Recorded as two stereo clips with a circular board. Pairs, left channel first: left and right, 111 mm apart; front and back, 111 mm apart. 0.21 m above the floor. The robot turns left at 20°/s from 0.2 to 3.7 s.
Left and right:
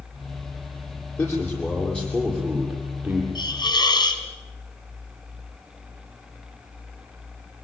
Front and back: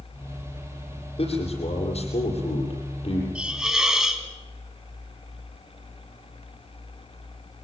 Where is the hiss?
105° left, 2 m; by 4.2 s 95° left, 2 m.